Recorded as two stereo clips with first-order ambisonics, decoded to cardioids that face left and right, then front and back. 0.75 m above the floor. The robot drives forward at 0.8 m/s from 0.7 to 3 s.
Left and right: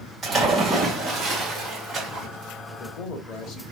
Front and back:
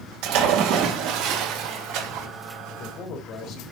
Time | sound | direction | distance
0.2 | a splash | 170° right | 3.5 m
2.7 | a man speaking | 40° left | 1.6 m